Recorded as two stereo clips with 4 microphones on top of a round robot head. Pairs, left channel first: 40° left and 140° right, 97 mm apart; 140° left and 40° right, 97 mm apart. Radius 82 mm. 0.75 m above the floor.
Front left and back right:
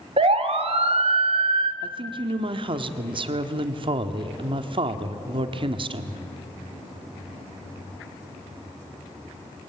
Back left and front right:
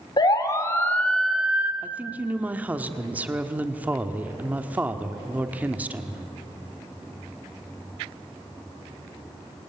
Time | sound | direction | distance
0.2 | a siren | 170° right | 2.5 m
1.8 | a woman speaking | 110° right | 1.6 m